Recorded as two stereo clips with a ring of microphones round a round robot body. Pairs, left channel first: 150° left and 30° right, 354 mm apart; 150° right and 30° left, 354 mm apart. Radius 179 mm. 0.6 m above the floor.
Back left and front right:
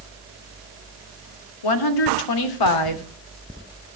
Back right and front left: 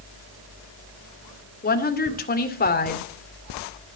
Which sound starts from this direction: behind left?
A woman speaking, at 1.6 s.